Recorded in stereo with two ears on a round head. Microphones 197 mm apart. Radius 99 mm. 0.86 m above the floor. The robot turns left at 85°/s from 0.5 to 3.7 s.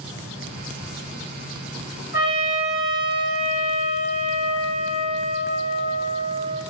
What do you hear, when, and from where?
2.1 s a trumpet: 10° right, 1.1 m; by 6.6 s 140° right, 1.1 m